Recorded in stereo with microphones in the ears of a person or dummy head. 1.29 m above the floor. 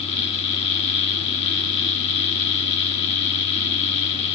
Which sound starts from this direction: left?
A fan, at 0.0 s.